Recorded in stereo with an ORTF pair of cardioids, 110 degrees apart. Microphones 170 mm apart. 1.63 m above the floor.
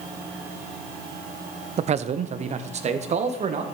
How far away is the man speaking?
About 0.7 m.